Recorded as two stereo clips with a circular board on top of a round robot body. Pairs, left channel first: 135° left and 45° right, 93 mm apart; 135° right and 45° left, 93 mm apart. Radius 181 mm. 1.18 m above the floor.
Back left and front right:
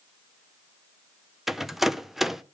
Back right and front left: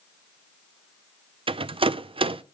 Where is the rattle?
40° left, 0.5 m.